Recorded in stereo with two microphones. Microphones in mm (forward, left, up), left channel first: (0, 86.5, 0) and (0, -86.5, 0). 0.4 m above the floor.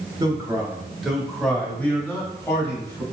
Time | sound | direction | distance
0.2 | a man speaking | 20° right (ahead or behind) | 1.0 m